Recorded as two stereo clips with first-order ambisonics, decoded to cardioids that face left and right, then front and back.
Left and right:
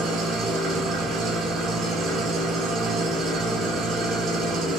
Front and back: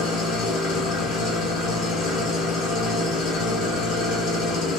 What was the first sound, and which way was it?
An engine running, 35° right.